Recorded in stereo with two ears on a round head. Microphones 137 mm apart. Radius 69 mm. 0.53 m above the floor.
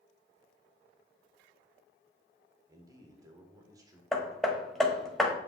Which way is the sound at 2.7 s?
25° right (ahead or behind).